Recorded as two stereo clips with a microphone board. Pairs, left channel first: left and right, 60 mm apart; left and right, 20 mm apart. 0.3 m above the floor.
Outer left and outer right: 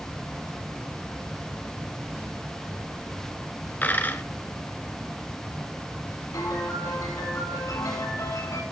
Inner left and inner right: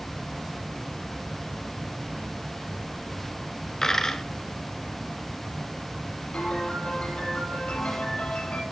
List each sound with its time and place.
3.8 s a dropped coin: 30° left (ahead or behind), 1.4 m
6.3 s a piano: 75° left (ahead or behind), 8 m